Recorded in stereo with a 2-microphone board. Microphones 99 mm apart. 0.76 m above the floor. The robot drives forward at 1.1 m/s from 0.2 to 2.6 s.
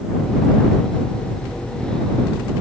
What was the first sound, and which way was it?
Only background noise.